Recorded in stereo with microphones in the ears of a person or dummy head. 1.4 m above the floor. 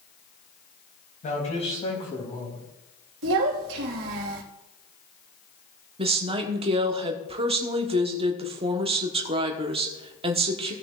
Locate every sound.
1.2 s a man speaking: 40° left (ahead or behind), 3 m; by 2.6 s 20° left (ahead or behind), 3 m
3.2 s a child speaking: 70° right (ahead or behind), 1.7 m
6.0 s a woman speaking: 35° right (ahead or behind), 1.1 m